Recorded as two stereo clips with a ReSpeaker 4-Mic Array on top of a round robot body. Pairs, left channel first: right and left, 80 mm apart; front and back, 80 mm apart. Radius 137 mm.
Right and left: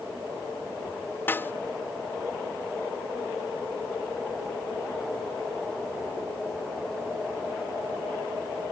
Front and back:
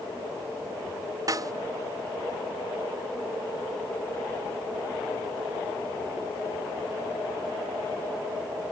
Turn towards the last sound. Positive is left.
turn(degrees=-150)